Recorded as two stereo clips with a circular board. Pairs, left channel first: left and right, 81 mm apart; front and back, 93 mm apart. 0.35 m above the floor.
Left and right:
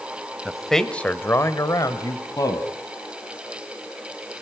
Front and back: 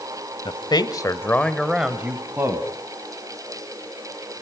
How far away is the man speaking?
About 1.7 m.